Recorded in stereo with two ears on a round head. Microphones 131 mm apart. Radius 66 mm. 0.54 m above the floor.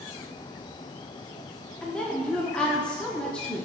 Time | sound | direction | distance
1.8 | a woman speaking | 5° left (ahead or behind) | 0.8 m